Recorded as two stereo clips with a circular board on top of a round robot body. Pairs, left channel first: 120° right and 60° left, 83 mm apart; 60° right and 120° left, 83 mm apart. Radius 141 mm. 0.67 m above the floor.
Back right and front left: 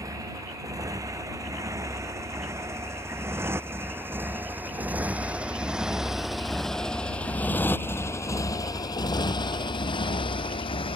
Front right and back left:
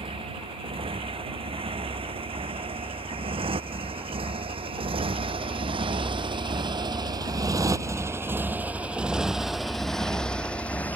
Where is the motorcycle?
110° left; by 11.0 s 135° right.